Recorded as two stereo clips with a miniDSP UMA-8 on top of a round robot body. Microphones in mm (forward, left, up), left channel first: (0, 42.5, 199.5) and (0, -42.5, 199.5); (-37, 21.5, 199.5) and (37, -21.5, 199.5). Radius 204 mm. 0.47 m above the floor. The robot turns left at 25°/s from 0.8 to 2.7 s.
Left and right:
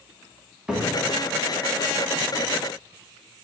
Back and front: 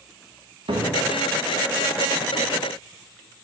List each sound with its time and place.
0.7 s a cupboard door: 10° right, 1.6 m; by 2.5 s 50° right, 1.6 m